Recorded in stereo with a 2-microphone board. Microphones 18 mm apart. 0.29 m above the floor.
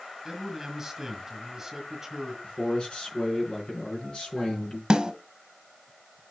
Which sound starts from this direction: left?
A man speaking, at 2.4 s.